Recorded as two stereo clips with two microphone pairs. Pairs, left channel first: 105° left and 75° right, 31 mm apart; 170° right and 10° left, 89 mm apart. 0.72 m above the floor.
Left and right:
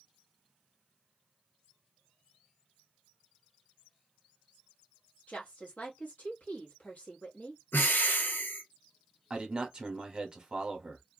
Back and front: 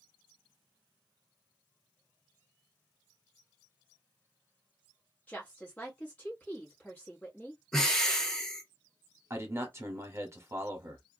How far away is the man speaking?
About 1.0 m.